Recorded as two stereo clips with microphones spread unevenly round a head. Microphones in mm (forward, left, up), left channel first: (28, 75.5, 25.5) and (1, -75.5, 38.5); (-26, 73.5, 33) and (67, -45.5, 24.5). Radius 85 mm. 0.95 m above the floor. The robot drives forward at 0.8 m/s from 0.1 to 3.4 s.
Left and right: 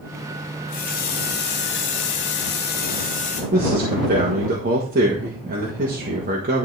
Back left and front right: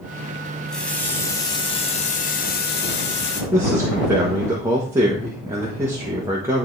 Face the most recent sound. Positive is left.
turn(degrees=-120)